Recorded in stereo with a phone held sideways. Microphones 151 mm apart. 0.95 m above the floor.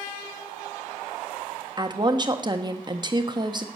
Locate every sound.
1.8 s a woman speaking: 30° right (ahead or behind), 1.3 m